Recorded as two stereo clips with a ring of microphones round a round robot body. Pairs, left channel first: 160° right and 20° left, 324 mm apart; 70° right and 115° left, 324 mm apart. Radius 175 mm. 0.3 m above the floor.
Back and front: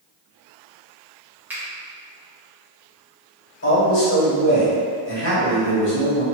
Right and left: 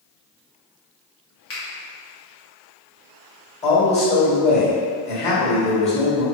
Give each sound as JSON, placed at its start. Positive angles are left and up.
{"t": 1.5, "sound": "a finger snap", "azimuth_deg": -60, "distance_m": 1.4}
{"t": 3.6, "sound": "a man speaking", "azimuth_deg": -130, "distance_m": 1.8}